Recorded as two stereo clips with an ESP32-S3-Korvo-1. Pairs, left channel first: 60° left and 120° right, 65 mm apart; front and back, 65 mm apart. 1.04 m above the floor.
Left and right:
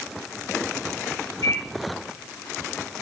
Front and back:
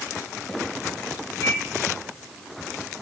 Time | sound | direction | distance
1.4 | a microwave | 35° left | 3 m